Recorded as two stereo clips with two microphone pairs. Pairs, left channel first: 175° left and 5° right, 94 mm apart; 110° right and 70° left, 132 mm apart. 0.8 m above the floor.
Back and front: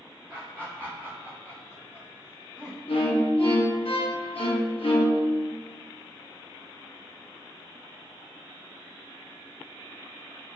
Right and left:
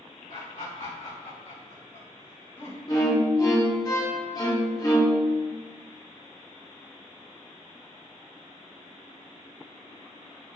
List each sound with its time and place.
0.3 s laughter: 105° right, 1.8 m; by 2.8 s 135° right, 4 m
2.9 s a violin: 175° right, 0.8 m